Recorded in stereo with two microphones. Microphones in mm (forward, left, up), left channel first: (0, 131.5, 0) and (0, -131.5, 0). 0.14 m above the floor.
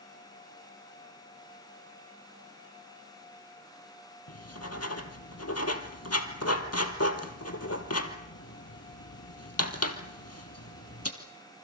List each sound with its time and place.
4.3 s writing: 65° left (ahead or behind), 2 m